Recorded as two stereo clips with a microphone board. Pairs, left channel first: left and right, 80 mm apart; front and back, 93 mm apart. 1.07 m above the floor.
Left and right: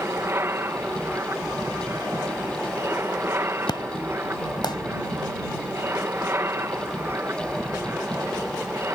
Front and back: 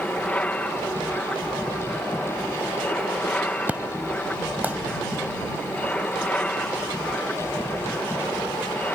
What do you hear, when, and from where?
0.0 s an aircraft: 65° right
3.7 s an explosion: 110° left